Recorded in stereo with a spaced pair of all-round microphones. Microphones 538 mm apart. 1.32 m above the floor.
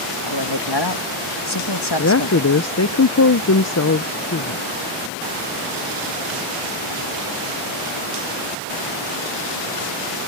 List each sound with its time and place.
0.2 s a man speaking: 45° left (ahead or behind)
2.0 s a woman speaking: 30° left (ahead or behind)